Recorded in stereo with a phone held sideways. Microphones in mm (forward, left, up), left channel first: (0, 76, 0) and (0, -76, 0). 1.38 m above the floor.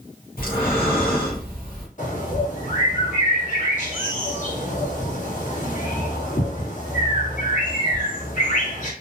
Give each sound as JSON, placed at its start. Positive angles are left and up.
{"t": 0.4, "sound": "breathing", "side_deg": 70, "distance_m": 1.7}
{"t": 2.0, "sound": "a bird", "side_deg": 60, "distance_m": 1.5}